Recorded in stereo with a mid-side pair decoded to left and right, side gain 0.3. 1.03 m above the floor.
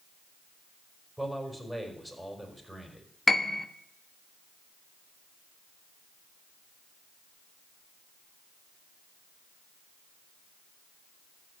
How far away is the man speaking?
About 4.5 m.